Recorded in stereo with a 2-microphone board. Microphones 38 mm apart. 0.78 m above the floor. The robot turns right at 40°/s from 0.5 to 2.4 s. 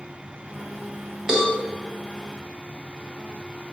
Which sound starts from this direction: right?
A cowbell, at 1.3 s.